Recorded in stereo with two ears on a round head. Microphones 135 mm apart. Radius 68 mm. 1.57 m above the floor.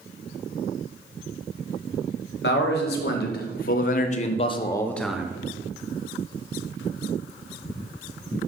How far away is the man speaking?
About 1.4 m.